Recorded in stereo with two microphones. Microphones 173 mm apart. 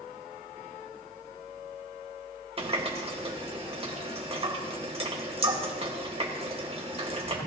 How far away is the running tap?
About 1.8 m.